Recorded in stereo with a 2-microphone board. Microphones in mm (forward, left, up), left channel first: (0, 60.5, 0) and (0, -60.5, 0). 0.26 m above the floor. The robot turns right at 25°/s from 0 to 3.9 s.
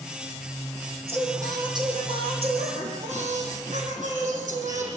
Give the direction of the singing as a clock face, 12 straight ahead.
5 o'clock.